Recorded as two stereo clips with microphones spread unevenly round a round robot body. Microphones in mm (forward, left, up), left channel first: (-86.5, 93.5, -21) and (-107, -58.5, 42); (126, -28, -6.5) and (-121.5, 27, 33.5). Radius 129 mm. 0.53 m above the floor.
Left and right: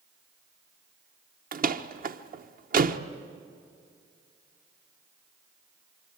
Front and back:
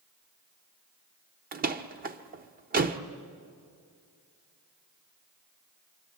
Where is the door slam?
135° right, 1.1 m.